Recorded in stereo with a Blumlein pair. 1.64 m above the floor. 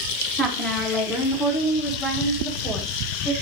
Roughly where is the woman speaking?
Ahead.